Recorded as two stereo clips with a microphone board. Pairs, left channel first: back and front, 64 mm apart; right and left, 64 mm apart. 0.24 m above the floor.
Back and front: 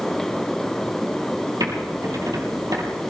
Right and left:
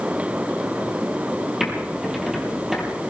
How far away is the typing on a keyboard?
About 4.5 m.